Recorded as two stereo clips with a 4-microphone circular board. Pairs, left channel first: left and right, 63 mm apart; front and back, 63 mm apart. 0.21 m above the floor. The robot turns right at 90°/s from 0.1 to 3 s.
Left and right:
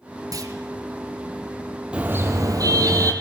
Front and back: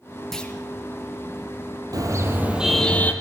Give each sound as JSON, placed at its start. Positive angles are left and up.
{"t": 0.3, "sound": "a clunk", "azimuth_deg": -85, "distance_m": 2.5}
{"t": 1.9, "sound": "a car horn", "azimuth_deg": -160, "distance_m": 4.0}